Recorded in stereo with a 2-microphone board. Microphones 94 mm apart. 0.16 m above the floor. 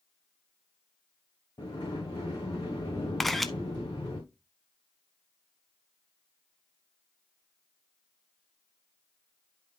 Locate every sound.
1.6 s a sliding door: 45° left (ahead or behind), 3.5 m
3.2 s a camera shutter: centre (ahead or behind), 0.5 m